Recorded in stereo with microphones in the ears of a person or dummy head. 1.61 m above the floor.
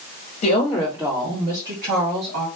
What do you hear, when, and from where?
0.4 s a woman speaking: 35° left (ahead or behind), 0.9 m; by 2.5 s 65° right (ahead or behind), 1.7 m